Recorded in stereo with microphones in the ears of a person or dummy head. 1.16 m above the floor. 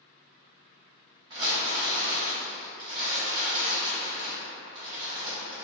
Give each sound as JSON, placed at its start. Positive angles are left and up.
{"t": 1.3, "sound": "crumpling", "side_deg": -30, "distance_m": 0.8}